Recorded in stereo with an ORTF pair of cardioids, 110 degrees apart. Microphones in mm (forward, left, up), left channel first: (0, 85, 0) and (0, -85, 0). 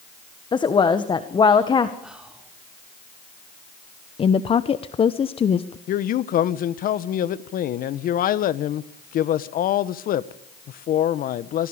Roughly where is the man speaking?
Ahead left.